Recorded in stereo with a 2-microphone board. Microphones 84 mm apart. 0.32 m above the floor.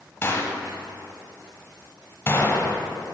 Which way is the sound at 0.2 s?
30° left (ahead or behind).